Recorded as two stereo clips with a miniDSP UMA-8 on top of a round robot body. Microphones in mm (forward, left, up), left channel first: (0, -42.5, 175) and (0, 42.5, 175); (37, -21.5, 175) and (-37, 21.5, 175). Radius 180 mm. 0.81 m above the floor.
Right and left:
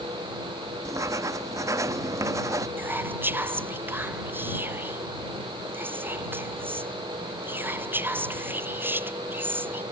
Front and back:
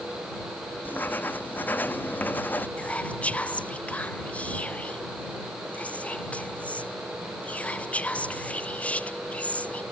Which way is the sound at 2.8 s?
35° left.